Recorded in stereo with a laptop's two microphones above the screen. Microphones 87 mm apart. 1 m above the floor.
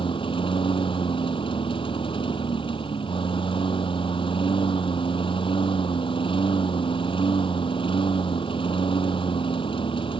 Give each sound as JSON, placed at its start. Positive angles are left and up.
{"t": 0.0, "sound": "a lawn mower", "side_deg": 85}